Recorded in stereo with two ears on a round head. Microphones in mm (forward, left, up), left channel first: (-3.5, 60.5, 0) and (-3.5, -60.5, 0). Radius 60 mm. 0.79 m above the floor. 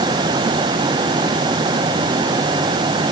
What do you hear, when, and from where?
Only background noise.